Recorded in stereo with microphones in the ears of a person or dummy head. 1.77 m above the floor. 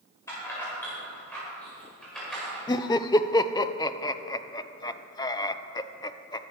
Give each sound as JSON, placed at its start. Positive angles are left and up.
{"t": 0.3, "sound": "keys jangling", "side_deg": 20, "distance_m": 5.5}
{"t": 2.7, "sound": "laughter", "side_deg": 20, "distance_m": 0.7}